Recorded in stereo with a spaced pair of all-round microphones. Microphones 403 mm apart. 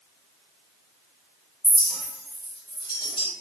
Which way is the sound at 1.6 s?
10° left (ahead or behind).